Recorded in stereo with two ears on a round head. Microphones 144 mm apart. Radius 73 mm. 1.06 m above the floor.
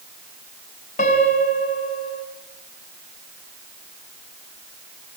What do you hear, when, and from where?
1.0 s a piano: 50° left (ahead or behind), 4 m